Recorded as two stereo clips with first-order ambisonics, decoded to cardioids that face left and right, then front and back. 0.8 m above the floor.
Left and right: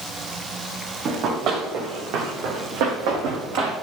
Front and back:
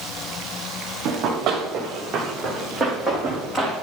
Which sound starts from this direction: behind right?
Running footsteps, at 1.1 s.